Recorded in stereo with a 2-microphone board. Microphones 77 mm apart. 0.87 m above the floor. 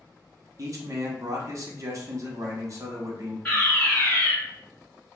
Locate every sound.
0.6 s a man speaking: 45° right (ahead or behind), 0.8 m
3.5 s a fire alarm: 15° left (ahead or behind), 1.5 m